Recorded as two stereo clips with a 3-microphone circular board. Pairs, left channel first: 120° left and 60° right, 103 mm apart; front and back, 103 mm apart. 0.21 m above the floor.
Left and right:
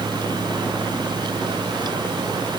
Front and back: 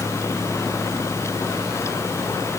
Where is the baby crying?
I don't hear a baby crying.